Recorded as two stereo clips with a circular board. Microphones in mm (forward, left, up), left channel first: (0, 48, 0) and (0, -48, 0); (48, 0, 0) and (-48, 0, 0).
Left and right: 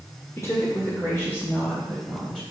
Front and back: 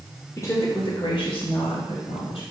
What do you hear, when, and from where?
0.4 s a woman speaking: 45° left, 1.8 m; by 2.4 s 5° left, 4 m